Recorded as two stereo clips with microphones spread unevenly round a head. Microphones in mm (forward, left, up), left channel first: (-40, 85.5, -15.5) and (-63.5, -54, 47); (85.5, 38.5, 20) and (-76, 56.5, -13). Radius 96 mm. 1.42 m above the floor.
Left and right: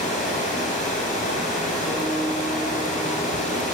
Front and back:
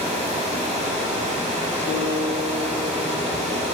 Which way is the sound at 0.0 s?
120° left.